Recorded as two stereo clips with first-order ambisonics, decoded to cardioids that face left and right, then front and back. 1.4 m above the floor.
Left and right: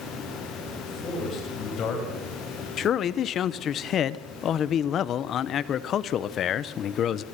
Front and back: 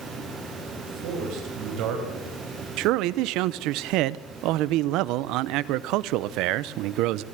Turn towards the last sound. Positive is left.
turn(degrees=145)